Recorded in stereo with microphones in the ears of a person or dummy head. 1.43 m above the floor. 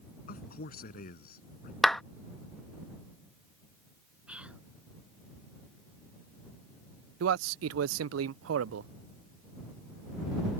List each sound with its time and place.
0.3 s a man speaking: 50° left (ahead or behind)
1.8 s a clap: centre (ahead or behind)
4.3 s whispering: 5° right (ahead or behind)
7.2 s a man speaking: 85° right